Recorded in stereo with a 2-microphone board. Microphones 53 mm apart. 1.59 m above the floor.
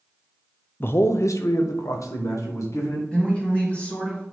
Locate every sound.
0.8 s a man speaking: 40° left (ahead or behind), 0.5 m; by 3.0 s 70° left (ahead or behind), 1.8 m
3.1 s a woman speaking: 20° left (ahead or behind), 2.5 m